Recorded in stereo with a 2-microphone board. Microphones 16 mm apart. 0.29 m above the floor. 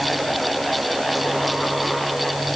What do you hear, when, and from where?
Only background noise.